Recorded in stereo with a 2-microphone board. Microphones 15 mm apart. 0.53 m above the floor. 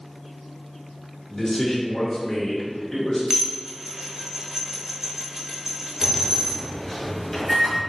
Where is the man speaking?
25° left (ahead or behind), 1.3 m.